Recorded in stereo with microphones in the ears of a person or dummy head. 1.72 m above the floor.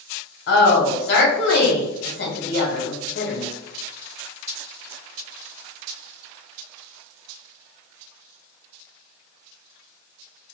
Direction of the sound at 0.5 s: 70° left (ahead or behind).